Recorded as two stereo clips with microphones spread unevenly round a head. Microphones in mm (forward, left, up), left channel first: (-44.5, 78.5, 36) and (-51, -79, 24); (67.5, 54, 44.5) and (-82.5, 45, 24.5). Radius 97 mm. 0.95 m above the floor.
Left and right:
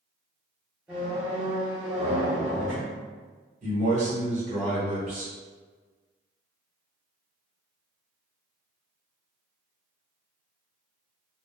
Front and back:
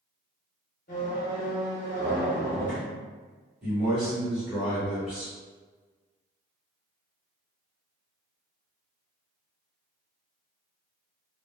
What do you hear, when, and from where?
0.9 s a squeak: 5° right, 0.7 m
3.6 s a man speaking: 100° right, 1.3 m